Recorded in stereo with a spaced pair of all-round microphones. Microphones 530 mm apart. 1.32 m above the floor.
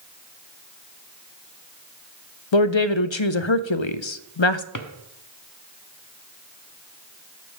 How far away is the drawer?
About 0.9 m.